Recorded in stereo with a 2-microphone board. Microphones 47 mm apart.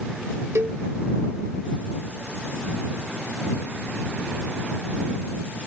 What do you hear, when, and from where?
0.6 s a cowbell: 80° right